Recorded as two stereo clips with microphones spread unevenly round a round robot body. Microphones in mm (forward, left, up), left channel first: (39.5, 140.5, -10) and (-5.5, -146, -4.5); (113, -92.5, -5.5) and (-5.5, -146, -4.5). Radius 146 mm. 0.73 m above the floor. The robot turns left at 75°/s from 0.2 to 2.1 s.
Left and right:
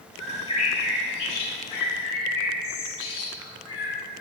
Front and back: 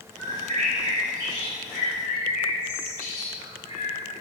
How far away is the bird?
About 3 m.